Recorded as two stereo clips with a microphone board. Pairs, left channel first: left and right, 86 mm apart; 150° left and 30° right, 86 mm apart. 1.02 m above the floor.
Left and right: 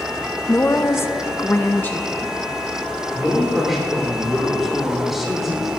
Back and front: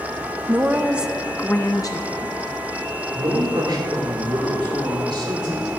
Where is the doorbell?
I don't hear a doorbell.